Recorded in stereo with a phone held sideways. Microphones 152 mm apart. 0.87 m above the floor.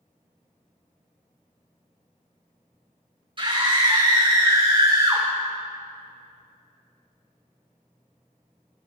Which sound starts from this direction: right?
A scream, at 3.4 s.